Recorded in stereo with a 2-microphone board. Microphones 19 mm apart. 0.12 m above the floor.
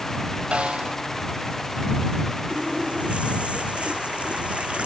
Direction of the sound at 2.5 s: 80° right.